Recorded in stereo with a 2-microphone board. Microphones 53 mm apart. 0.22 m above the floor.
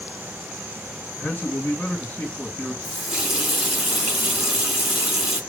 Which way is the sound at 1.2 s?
40° left (ahead or behind).